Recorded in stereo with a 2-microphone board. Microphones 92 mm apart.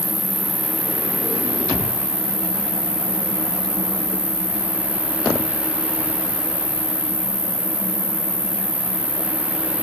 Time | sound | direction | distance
0.0 | an insect | 50° right (ahead or behind) | 2.5 m